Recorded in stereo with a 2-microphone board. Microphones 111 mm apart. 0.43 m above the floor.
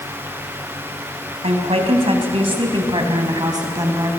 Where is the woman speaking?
70° right (ahead or behind), 3 m; by 4.1 s 30° right (ahead or behind), 3.5 m.